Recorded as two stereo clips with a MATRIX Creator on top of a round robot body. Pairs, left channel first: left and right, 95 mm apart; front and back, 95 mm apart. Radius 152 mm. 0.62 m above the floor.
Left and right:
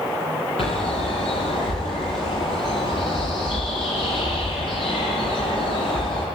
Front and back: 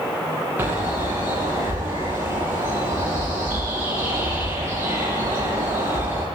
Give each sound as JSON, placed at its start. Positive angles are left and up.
{"t": 0.6, "sound": "a bird", "azimuth_deg": 115, "distance_m": 10.0}